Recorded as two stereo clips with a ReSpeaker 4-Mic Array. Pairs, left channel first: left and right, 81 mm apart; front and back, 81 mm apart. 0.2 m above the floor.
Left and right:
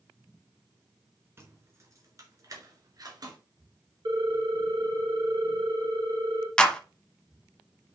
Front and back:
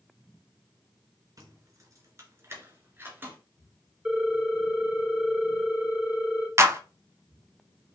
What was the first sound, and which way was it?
Keys jangling, 145° right.